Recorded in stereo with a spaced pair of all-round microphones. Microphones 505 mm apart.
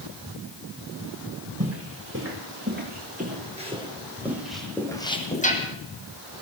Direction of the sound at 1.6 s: 25° right (ahead or behind).